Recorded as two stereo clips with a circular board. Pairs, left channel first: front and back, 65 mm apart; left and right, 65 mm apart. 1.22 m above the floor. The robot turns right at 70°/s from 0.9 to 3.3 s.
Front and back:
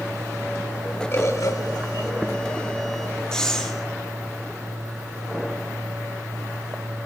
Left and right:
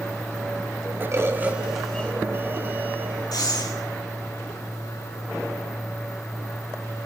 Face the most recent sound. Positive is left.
turn(degrees=80)